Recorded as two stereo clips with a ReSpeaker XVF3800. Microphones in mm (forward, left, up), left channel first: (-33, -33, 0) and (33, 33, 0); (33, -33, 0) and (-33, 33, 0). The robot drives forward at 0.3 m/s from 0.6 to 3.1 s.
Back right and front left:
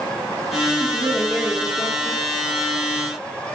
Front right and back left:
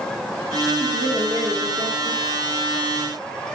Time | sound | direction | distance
0.8 | a woman speaking | 120° left | 2.0 m